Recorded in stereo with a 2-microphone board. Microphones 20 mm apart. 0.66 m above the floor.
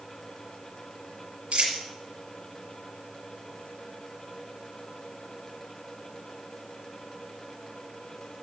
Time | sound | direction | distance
1.5 | a dropped coin | 60° right (ahead or behind) | 4.5 m